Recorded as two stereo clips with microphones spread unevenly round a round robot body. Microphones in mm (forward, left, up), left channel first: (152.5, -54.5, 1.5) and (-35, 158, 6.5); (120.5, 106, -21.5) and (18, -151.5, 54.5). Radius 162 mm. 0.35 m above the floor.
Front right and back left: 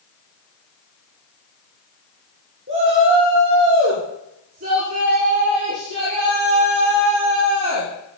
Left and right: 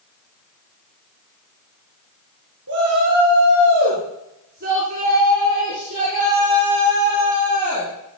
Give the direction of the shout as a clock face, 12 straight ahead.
6 o'clock.